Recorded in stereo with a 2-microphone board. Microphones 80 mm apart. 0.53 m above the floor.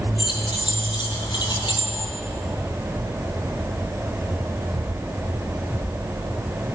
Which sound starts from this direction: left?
Keys jangling, at 0.2 s.